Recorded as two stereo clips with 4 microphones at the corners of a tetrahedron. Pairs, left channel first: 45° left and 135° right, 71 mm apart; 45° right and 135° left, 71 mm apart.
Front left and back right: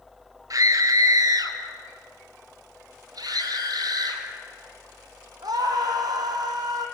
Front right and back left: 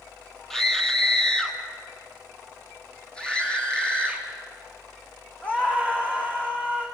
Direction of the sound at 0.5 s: 130° right.